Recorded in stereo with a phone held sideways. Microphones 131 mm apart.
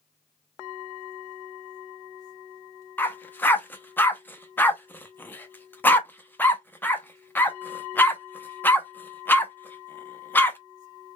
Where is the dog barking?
15° left (ahead or behind), 0.6 m.